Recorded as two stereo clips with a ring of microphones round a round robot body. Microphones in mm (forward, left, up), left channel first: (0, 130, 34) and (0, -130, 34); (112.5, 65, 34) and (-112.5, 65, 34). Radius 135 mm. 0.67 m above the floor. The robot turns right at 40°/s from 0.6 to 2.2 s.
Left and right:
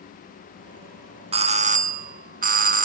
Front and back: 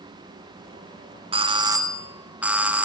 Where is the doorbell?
135° right, 1.1 m; by 2.9 s 100° right, 1.1 m.